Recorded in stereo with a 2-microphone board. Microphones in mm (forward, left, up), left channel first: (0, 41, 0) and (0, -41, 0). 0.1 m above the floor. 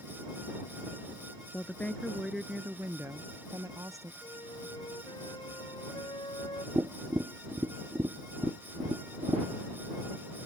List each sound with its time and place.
1.5 s a woman speaking: 25° left (ahead or behind); by 4.1 s 45° right (ahead or behind)
4.2 s a flute: 75° left (ahead or behind)
6.8 s tapping: 40° right (ahead or behind)